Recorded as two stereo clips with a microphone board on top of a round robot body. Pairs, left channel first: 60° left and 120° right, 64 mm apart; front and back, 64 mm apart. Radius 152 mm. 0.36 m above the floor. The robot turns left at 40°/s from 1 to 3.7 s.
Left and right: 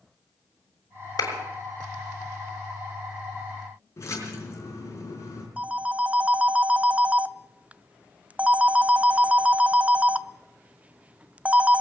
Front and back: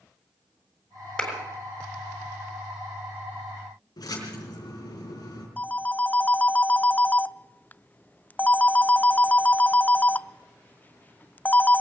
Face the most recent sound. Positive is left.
turn(degrees=-60)